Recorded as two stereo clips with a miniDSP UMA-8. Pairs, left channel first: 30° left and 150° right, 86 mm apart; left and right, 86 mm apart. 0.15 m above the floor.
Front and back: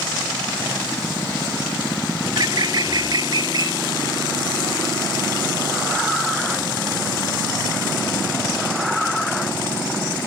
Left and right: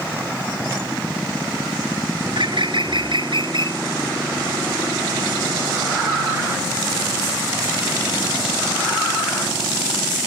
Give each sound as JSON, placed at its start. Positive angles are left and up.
{"t": 2.2, "sound": "a bird", "azimuth_deg": -115}